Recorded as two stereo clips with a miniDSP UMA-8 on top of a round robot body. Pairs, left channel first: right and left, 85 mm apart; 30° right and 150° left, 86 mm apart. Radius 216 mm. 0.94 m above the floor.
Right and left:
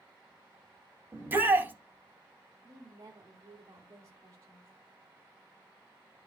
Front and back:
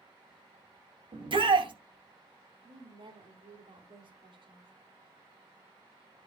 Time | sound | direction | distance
1.1 | a shout | 155° left | 2.5 m
2.6 | a woman speaking | 145° left | 3.5 m